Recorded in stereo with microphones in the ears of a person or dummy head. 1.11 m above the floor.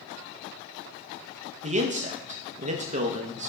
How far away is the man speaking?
About 0.9 m.